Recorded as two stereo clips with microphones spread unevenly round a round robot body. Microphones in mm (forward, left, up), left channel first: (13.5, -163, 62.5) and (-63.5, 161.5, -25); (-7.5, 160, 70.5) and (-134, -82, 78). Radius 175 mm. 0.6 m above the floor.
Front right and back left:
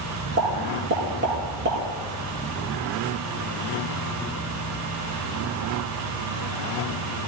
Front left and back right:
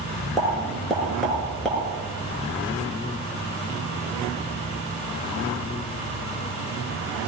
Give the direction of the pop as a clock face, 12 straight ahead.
7 o'clock.